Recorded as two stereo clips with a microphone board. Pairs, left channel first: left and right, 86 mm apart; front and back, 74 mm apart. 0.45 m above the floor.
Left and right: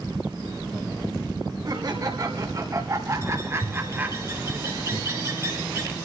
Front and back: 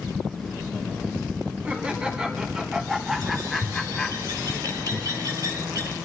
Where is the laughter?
110° right, 2 m; by 4.2 s 60° right, 1.4 m.